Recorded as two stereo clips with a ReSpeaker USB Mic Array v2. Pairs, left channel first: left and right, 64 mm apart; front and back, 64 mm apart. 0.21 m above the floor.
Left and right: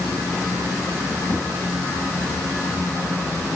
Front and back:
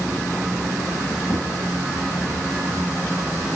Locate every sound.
1.3 s a whoosh: 40° left, 8.5 m